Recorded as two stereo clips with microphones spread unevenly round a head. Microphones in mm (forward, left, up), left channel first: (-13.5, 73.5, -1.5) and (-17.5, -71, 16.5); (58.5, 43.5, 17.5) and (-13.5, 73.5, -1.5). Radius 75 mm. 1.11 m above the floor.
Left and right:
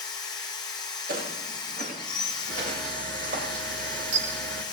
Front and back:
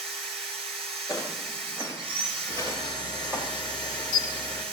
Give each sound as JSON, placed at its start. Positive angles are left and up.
{"t": 0.0, "sound": "a machine running", "azimuth_deg": 155, "distance_m": 1.9}
{"t": 1.1, "sound": "footsteps", "azimuth_deg": -130, "distance_m": 8.5}
{"t": 2.5, "sound": "a camera shutter", "azimuth_deg": -70, "distance_m": 1.9}